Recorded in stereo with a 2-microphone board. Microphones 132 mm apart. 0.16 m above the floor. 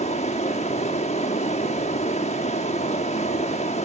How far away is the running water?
About 1.5 m.